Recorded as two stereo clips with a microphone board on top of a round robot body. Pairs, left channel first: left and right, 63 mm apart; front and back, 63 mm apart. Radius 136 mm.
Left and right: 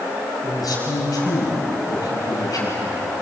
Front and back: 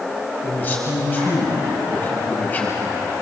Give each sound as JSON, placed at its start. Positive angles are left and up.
{"t": 0.4, "sound": "a man speaking", "azimuth_deg": 65, "distance_m": 6.0}